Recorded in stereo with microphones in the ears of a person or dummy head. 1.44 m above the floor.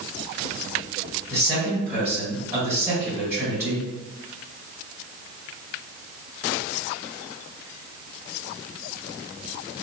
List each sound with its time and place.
1.3 s a man speaking: 15° right (ahead or behind), 1.9 m